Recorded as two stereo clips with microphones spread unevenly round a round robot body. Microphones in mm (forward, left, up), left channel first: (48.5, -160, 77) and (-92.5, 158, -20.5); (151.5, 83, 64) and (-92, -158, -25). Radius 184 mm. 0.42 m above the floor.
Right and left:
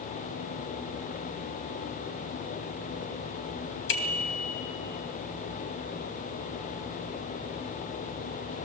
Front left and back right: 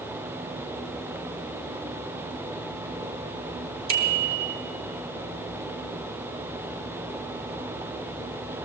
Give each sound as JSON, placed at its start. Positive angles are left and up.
{"t": 3.9, "sound": "a bicycle bell", "azimuth_deg": -100, "distance_m": 2.5}